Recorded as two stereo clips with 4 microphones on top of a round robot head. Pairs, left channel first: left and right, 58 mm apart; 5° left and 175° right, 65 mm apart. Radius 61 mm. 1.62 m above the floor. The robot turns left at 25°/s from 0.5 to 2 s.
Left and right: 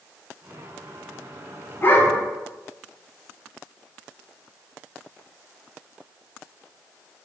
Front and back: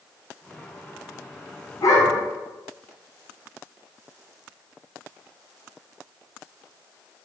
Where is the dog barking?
35° left, 2 m; by 2.2 s 30° left, 2 m.